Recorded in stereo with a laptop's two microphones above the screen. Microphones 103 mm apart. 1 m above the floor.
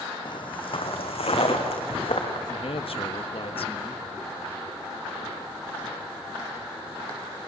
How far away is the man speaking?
About 1.4 m.